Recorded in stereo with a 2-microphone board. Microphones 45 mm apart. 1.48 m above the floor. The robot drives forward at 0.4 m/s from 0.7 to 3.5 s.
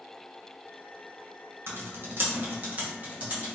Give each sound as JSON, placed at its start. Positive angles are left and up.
{"t": 1.7, "sound": "typing on a keyboard", "side_deg": -65, "distance_m": 0.6}